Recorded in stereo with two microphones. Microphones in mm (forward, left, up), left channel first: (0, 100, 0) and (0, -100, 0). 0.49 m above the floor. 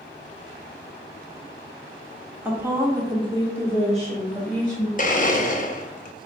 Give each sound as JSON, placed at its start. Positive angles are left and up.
{"t": 2.5, "sound": "a woman speaking", "side_deg": -10, "distance_m": 0.9}
{"t": 5.0, "sound": "a blender", "side_deg": 40, "distance_m": 0.5}